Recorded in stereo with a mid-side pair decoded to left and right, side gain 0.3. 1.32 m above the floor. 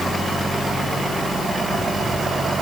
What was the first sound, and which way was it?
Only background noise.